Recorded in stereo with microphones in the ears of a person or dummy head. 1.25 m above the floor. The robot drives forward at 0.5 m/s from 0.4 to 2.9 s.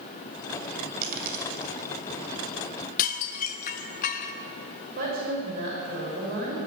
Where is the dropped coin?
55° right (ahead or behind), 2.5 m; by 1.7 s 60° right (ahead or behind), 2.5 m.